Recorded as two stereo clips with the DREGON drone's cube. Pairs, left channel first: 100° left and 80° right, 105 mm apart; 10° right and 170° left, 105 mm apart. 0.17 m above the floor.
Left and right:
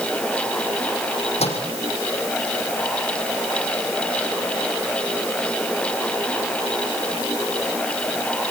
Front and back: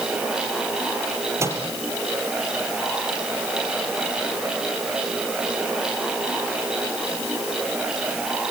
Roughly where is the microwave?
Left.